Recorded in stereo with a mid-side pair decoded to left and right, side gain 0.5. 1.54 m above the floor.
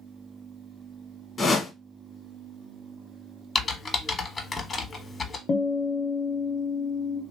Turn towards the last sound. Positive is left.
turn(degrees=45)